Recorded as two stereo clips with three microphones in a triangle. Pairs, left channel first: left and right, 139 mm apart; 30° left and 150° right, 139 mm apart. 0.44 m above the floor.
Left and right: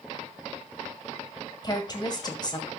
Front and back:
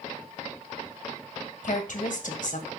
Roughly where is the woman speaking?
Ahead left.